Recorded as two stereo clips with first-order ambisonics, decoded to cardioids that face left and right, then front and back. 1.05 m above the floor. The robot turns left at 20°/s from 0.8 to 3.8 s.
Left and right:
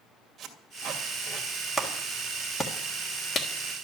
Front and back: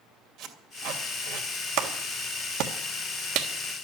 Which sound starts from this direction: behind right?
Tape being pulled, at 0.4 s.